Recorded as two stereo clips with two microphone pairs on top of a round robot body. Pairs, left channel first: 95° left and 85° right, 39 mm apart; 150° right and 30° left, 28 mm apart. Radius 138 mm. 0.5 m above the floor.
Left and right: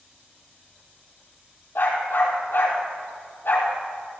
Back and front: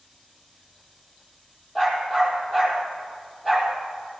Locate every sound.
1.8 s a dog barking: 135° left, 5 m